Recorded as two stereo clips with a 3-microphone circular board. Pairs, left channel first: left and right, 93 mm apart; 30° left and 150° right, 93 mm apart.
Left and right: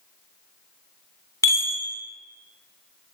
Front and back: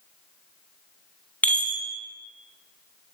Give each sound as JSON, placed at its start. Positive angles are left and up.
{"t": 1.4, "sound": "a chime", "azimuth_deg": 95, "distance_m": 1.2}